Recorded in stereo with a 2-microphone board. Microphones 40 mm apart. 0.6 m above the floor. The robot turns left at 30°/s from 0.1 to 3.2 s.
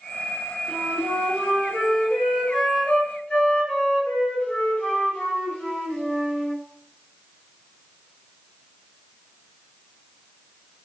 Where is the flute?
145° right, 1.5 m; by 6.6 s 140° left, 1.5 m.